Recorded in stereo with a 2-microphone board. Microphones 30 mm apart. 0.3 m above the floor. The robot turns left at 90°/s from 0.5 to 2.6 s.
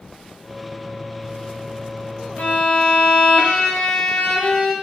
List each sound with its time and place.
2.4 s a violin: 55° left (ahead or behind), 0.5 m; by 4.7 s 60° left (ahead or behind), 0.5 m